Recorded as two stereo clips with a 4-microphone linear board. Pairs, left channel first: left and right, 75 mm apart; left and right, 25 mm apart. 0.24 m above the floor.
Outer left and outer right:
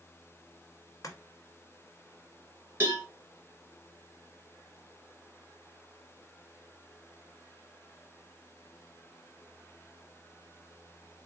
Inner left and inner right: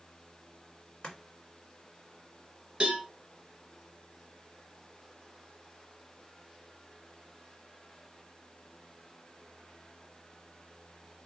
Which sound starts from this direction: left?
Chopping, at 1.0 s.